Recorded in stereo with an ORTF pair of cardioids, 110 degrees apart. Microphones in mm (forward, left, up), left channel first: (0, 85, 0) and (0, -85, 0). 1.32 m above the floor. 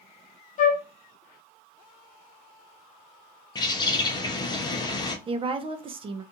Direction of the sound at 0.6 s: 50° left.